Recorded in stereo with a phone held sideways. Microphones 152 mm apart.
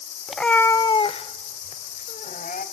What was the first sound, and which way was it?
A cat meowing, 5° right (ahead or behind).